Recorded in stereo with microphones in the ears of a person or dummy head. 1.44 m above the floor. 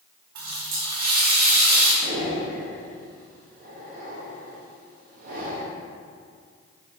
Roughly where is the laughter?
No laughter in this recording.